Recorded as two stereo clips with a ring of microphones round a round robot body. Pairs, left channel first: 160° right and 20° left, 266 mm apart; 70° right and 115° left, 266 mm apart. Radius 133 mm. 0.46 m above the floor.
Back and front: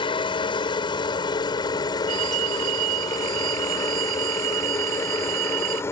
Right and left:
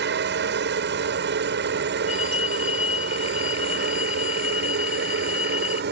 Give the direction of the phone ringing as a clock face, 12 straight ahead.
12 o'clock.